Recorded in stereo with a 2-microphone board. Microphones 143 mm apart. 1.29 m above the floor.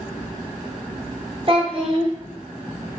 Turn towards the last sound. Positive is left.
turn(degrees=-40)  # may be behind; listen again after turning